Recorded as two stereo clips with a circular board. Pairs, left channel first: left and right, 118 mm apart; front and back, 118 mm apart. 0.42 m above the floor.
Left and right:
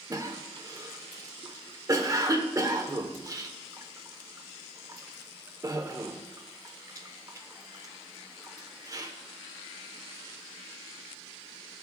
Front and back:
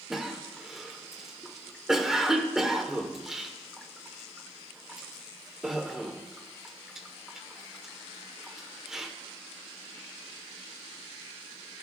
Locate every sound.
0.1 s a cough: 100° right, 0.9 m